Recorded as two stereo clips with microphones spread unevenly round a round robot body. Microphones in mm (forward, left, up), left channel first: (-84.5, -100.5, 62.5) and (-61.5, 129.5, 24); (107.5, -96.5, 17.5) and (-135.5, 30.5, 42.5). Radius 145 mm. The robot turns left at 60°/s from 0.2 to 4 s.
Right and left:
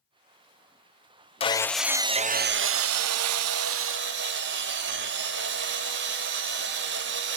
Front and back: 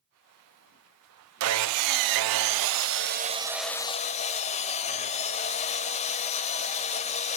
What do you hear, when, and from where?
1.4 s sawing: 165° right, 0.5 m; by 7.4 s 40° left, 0.5 m